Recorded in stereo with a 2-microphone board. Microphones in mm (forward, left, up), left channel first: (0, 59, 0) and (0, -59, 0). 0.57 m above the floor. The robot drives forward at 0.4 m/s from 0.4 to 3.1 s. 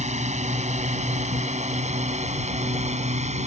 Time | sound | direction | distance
0.0 | a drone | 75° right (ahead or behind) | ?